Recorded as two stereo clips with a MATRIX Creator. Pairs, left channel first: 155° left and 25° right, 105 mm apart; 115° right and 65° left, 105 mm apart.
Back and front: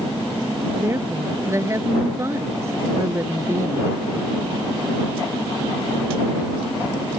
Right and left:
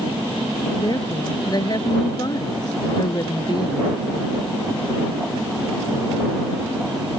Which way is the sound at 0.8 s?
80° right.